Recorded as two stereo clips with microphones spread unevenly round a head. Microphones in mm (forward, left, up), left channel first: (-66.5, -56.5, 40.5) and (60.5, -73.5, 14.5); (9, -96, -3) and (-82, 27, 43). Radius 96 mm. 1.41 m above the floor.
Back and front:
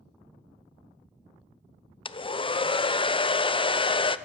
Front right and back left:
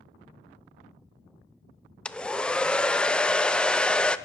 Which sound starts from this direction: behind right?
A hair dryer, at 2.0 s.